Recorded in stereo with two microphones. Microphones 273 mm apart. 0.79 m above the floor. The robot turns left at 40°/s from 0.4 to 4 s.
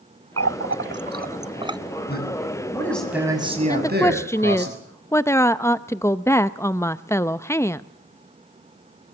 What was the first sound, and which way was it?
A running tap, 60° right (ahead or behind).